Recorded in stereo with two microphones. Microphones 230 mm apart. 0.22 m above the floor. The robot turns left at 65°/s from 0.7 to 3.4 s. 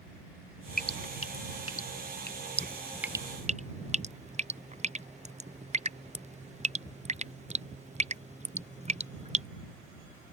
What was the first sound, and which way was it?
Dripping, 40° left (ahead or behind).